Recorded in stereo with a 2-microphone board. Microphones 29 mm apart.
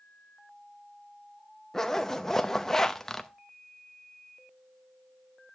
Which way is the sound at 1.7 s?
10° left (ahead or behind).